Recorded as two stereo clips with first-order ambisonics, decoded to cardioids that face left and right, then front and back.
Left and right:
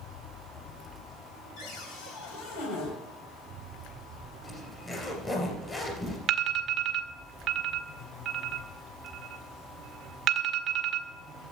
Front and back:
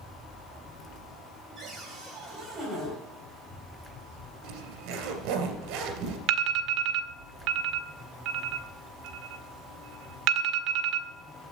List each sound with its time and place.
1.6 s a cupboard door: 105° left, 3.5 m
4.4 s a zipper: 165° left, 2.5 m
6.3 s an alarm: 145° right, 0.9 m